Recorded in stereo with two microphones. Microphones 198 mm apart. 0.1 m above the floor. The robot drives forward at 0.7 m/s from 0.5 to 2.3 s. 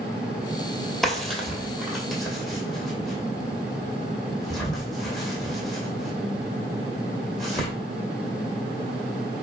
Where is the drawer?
Centre (ahead or behind), 0.9 m.